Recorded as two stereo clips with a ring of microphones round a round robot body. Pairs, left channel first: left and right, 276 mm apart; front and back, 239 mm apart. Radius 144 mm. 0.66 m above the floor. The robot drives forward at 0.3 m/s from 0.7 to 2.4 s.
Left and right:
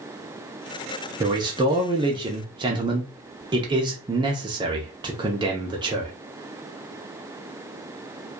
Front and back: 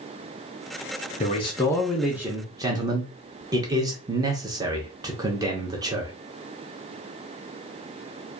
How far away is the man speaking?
About 0.5 m.